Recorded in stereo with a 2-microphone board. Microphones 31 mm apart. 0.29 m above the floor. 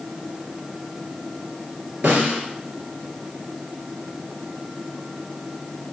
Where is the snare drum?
55° right (ahead or behind), 3 m.